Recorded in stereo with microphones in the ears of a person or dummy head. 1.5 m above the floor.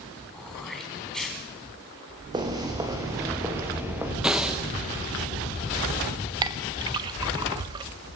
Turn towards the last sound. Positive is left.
turn(degrees=-25)  # may be behind; listen again after turning